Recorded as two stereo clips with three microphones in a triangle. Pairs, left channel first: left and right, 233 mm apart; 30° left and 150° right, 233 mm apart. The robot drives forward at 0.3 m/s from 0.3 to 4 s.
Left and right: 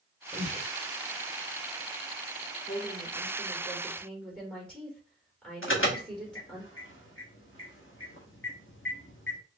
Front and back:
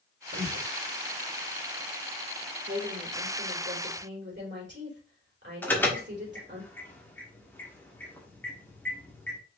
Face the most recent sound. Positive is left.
turn(degrees=110)